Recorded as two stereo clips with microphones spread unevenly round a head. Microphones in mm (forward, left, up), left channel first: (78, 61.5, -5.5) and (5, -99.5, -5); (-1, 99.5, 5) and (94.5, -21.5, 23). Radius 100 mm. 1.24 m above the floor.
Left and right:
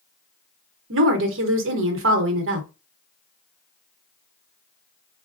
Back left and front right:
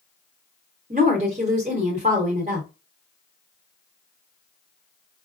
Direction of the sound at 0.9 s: 110° right.